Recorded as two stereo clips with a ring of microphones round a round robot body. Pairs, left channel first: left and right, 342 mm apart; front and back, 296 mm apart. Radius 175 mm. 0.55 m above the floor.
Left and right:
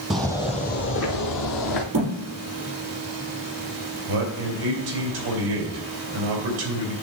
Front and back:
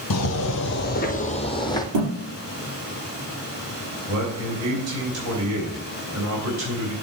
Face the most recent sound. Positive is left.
turn(degrees=-135)